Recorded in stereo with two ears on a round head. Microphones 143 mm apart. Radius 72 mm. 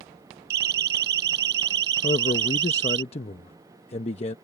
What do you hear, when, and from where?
0.5 s a siren: 75° right (ahead or behind); by 3.0 s 90° right
2.0 s a man speaking: 40° left (ahead or behind)